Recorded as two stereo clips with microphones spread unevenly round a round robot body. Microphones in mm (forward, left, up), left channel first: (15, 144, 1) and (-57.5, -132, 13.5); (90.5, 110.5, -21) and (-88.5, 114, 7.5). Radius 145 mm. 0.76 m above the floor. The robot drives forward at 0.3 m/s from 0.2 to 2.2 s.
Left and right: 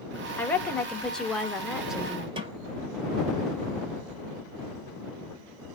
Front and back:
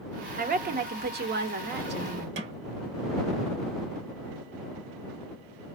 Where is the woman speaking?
155° left, 0.8 m; by 2.3 s 165° left, 1.2 m.